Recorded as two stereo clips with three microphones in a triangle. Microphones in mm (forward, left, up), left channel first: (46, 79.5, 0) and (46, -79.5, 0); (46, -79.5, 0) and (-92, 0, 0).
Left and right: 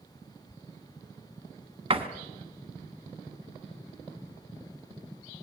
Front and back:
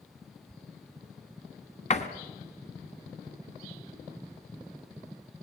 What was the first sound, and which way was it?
A door slam, 50° right.